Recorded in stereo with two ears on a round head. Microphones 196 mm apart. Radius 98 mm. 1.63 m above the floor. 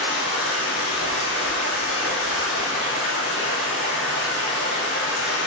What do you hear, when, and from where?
0.0 s running water: 35° left (ahead or behind), 2 m